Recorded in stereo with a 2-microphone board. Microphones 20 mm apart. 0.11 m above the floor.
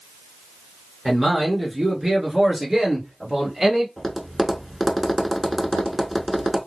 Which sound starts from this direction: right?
A man speaking, at 1.1 s.